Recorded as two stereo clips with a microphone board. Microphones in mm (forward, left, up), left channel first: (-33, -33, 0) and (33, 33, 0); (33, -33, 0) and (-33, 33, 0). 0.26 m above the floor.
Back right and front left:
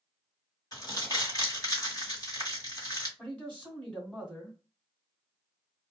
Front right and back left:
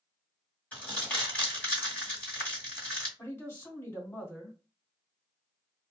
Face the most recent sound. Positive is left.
turn(degrees=-75)